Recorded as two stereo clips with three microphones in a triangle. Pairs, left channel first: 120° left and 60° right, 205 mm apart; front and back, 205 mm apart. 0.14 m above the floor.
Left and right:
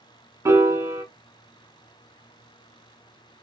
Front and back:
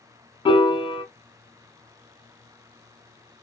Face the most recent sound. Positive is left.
turn(degrees=-5)